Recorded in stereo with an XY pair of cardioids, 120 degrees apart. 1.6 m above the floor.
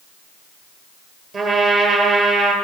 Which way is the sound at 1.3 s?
45° right.